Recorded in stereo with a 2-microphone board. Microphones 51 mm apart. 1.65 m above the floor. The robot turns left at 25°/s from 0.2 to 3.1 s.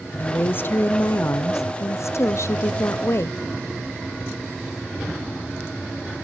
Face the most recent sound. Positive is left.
turn(degrees=65)